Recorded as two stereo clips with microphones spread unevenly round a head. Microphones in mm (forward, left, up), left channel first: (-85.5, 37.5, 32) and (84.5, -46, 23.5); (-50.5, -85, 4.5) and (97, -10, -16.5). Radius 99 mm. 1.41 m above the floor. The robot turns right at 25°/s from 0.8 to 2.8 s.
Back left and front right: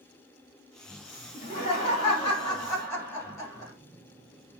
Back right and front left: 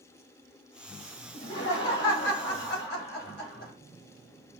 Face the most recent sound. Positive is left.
turn(degrees=-130)